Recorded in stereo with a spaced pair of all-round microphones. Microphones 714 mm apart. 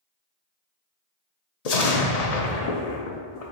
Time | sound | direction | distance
1.6 | an explosion | 60° left (ahead or behind) | 0.7 m